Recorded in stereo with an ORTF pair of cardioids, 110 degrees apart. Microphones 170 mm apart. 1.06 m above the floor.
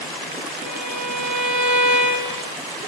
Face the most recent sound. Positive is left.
turn(degrees=-45)